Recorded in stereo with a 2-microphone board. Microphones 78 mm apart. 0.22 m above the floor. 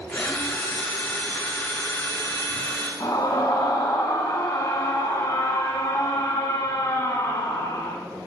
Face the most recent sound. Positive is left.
turn(degrees=60)  # may be behind; listen again after turning